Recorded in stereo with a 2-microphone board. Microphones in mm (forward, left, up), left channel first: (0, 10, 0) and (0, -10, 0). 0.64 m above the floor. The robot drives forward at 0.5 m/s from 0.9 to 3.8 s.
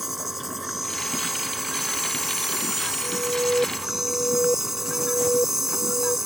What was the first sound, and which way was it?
An insect, 10° right (ahead or behind).